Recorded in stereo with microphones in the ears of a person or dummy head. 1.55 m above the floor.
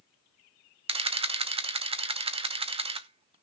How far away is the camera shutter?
About 0.8 m.